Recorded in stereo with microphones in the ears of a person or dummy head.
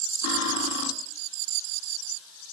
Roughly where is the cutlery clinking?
Left.